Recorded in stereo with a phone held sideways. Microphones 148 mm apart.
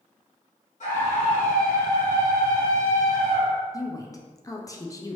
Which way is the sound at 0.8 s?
60° left (ahead or behind).